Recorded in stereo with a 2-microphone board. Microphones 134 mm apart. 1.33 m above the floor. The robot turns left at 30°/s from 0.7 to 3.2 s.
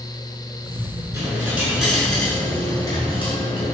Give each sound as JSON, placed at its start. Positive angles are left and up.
{"t": 1.1, "sound": "a dropped coin", "azimuth_deg": -155, "distance_m": 7.0}